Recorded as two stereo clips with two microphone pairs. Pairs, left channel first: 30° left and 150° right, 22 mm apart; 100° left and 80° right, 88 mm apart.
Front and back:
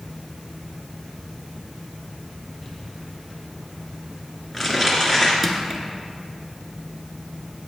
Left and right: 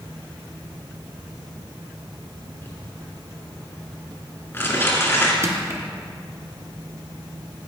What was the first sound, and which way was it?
Crumpling, 130° left.